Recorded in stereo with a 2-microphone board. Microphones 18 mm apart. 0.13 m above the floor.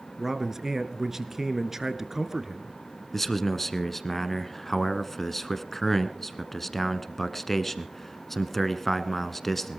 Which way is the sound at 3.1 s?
10° left (ahead or behind).